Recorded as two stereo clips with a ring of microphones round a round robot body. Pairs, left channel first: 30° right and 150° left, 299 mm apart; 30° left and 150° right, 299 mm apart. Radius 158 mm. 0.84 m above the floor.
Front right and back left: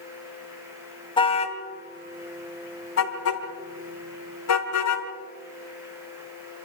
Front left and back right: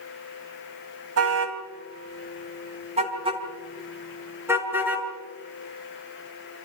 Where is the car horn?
105° right, 2.5 m; by 5.1 s 65° right, 5 m.